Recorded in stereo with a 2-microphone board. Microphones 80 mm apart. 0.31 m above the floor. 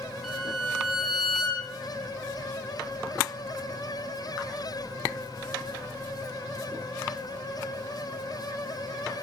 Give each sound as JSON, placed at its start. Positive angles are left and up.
{"t": 0.2, "sound": "a violin", "side_deg": 0, "distance_m": 3.0}